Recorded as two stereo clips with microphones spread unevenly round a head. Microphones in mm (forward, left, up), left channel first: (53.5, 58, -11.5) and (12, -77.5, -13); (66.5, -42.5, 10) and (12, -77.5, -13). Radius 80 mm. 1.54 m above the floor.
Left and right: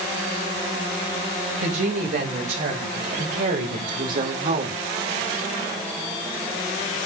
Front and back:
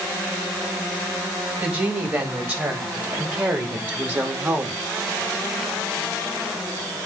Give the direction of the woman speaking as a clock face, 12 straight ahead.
3 o'clock.